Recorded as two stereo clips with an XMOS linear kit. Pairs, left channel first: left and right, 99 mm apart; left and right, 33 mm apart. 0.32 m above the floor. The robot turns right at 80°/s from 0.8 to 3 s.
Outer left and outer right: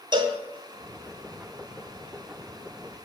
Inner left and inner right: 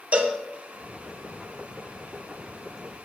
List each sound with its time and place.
0.1 s a cowbell: 50° right (ahead or behind), 0.8 m